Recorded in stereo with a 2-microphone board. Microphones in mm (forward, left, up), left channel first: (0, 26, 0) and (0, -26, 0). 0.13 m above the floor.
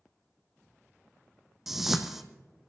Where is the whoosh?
5° right (ahead or behind), 1.3 m.